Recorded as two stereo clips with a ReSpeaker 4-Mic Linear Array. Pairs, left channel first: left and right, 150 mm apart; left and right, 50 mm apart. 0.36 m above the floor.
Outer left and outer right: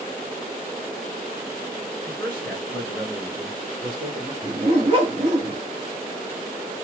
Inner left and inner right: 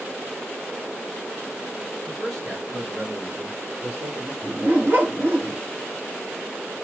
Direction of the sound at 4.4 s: 35° right (ahead or behind).